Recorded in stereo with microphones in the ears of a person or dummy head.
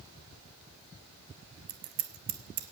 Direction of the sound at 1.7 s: 50° right (ahead or behind).